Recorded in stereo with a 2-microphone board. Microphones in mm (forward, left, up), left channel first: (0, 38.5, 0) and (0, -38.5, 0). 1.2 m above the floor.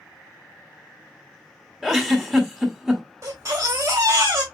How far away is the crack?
I don't hear a crack.